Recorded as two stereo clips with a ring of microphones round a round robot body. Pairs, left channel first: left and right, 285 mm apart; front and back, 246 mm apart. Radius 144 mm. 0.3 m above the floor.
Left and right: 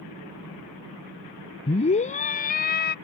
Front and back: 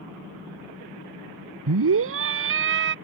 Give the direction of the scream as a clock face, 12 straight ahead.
7 o'clock.